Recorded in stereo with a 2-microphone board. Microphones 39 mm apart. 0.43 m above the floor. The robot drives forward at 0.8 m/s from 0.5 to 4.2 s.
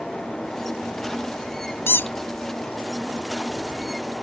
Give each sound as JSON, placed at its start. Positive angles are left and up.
{"t": 1.9, "sound": "a squeak", "side_deg": 70}